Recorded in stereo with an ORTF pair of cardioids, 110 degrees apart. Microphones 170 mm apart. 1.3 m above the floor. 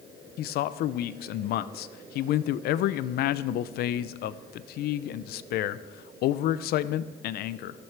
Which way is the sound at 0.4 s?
70° left.